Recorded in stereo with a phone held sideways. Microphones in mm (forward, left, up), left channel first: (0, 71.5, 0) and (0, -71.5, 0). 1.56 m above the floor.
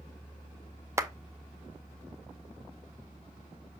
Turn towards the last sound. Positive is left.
turn(degrees=-20)  # may be behind; listen again after turning